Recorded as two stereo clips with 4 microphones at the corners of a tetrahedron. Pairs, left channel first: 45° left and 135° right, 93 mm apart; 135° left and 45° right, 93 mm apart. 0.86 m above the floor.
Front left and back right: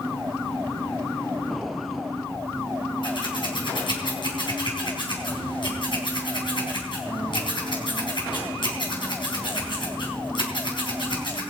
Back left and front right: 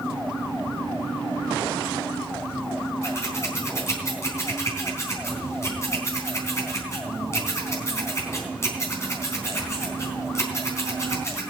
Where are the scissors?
75° left, 4 m.